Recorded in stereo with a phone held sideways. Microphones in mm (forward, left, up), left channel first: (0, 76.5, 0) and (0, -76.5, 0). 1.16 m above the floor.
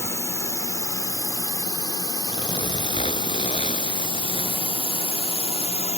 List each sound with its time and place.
0.0 s a drone: 15° left (ahead or behind); by 6.0 s 45° left (ahead or behind)
2.3 s a zipper: 40° left (ahead or behind)